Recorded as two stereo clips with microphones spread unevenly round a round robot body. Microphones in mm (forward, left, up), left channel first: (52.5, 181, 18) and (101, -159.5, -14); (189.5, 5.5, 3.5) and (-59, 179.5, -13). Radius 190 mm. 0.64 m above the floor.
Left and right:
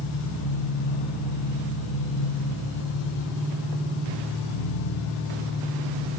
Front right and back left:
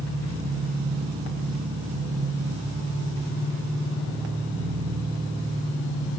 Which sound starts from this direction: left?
An engine running, at 0.0 s.